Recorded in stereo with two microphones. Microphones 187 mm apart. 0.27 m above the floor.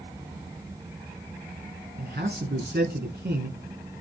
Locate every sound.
2.0 s a man speaking: 60° right (ahead or behind), 3.5 m